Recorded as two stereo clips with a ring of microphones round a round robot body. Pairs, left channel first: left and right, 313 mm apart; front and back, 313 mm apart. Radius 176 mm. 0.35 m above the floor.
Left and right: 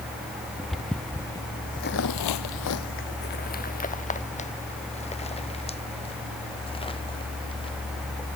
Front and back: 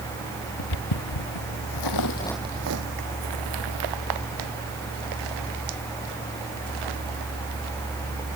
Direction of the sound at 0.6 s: Straight ahead.